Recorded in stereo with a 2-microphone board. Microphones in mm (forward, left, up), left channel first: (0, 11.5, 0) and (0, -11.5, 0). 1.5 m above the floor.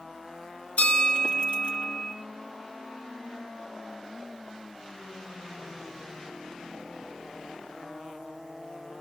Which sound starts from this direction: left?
A bell, at 0.8 s.